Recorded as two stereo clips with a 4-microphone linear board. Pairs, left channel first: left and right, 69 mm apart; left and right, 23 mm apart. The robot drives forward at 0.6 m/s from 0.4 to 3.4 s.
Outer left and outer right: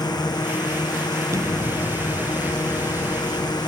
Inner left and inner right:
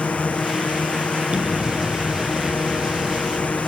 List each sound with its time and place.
0.0 s a drone: 80° left
1.3 s an explosion: 50° right (ahead or behind); by 3.6 s 30° right (ahead or behind)